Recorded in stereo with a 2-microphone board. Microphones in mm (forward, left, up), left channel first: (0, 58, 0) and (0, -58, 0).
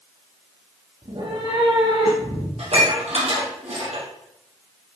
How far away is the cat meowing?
About 3.5 m.